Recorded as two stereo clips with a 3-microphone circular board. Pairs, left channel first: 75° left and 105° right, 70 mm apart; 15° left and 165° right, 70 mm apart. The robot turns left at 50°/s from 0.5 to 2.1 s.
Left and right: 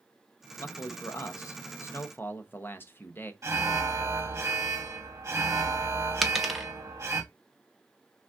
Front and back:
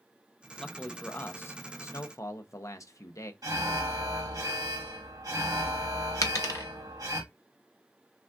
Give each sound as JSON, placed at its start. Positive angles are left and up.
{"t": 0.6, "sound": "a man speaking", "azimuth_deg": 100, "distance_m": 0.7}
{"t": 3.4, "sound": "an alarm", "azimuth_deg": -145, "distance_m": 1.3}
{"t": 6.2, "sound": "a dropped coin", "azimuth_deg": -15, "distance_m": 0.6}